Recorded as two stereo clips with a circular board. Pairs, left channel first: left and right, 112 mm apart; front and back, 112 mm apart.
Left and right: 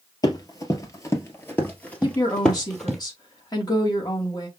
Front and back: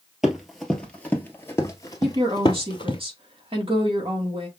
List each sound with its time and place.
0.2 s running footsteps: 95° left, 1.5 m; by 3.0 s 5° left, 1.8 m
2.0 s a woman speaking: 145° left, 2.5 m